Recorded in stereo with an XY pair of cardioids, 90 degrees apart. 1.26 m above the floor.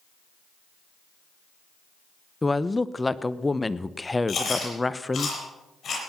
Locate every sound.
2.4 s a woman speaking: 20° left, 0.8 m
4.3 s chewing: 50° left, 8 m